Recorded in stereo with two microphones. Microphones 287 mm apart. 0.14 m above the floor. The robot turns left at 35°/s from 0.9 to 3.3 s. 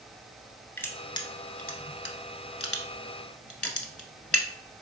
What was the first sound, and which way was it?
Crushing, 10° left (ahead or behind).